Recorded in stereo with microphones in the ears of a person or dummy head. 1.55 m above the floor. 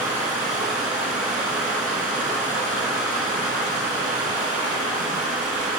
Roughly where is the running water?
Right.